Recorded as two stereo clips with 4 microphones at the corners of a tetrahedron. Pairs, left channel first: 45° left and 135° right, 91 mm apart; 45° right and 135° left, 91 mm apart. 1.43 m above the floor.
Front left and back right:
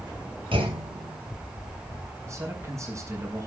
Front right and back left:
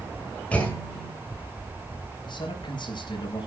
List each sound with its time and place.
0.5 s a clunk: 120° right, 6 m
2.2 s a man speaking: 75° right, 6.5 m